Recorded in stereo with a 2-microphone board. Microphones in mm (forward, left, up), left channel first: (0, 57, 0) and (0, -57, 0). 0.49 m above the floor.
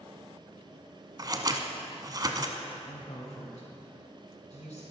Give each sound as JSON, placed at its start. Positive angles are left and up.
{"t": 1.2, "sound": "scissors", "side_deg": -35, "distance_m": 0.9}
{"t": 2.9, "sound": "a woman speaking", "side_deg": 70, "distance_m": 3.0}